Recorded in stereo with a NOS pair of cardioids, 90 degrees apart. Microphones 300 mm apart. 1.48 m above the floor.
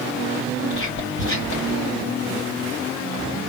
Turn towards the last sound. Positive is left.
turn(degrees=40)